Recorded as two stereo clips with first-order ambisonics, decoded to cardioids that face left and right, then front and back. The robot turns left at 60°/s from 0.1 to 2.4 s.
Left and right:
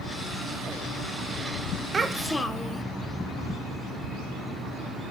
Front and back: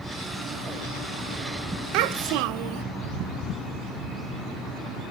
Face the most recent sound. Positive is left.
turn(degrees=170)